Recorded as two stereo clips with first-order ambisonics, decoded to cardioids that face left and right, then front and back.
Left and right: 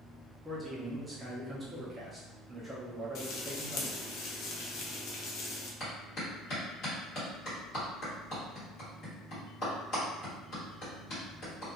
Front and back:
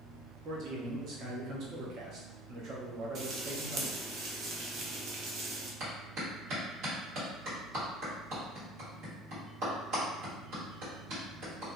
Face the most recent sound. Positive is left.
turn(degrees=140)